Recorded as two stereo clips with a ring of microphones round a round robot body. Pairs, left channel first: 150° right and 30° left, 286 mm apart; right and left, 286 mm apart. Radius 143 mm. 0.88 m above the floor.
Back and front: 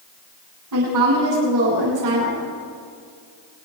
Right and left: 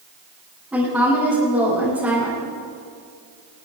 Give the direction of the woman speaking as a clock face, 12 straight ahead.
12 o'clock.